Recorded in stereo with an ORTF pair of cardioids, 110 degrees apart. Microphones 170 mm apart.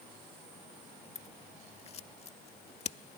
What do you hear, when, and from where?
1.1 s scissors: 40° left